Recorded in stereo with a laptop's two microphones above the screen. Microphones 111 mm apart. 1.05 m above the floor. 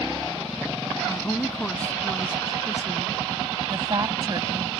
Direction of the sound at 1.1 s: 15° left (ahead or behind).